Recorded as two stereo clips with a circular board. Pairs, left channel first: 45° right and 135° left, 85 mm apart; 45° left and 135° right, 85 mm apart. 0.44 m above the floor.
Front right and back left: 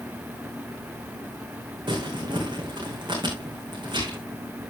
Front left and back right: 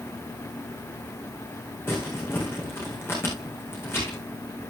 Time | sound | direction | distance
1.9 | crumpling | 105° left | 6.5 m